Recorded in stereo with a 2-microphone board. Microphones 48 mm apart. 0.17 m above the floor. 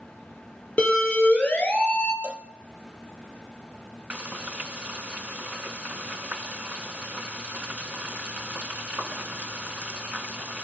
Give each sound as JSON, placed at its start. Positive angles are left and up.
{"t": 0.8, "sound": "a siren", "side_deg": 25, "distance_m": 4.5}
{"t": 2.2, "sound": "a cowbell", "side_deg": -30, "distance_m": 0.8}
{"t": 4.1, "sound": "frying", "side_deg": -25, "distance_m": 1.2}